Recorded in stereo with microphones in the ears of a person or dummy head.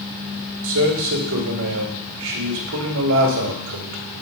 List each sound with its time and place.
0.6 s a man speaking: 70° right (ahead or behind), 2 m